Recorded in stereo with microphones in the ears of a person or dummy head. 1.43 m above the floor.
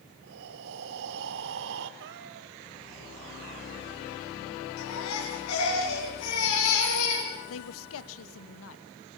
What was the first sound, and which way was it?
Breathing, 70° right (ahead or behind).